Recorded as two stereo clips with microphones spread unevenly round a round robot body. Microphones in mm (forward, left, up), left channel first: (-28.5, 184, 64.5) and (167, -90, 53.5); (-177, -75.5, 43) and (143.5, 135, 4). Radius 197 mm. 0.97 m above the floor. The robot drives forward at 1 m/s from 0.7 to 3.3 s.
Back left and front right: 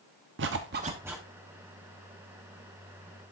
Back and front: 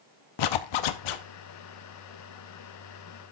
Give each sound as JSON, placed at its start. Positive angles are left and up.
{"t": 0.4, "sound": "a zipper", "azimuth_deg": -115, "distance_m": 0.7}